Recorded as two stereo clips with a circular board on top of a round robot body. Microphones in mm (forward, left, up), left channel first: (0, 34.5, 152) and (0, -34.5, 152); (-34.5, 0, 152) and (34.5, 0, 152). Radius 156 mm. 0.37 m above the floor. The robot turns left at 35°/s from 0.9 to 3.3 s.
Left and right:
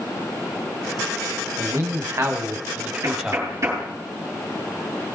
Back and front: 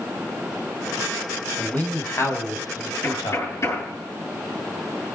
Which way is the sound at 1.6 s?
110° right.